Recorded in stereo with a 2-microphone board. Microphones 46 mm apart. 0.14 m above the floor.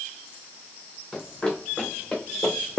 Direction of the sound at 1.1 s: 15° left (ahead or behind).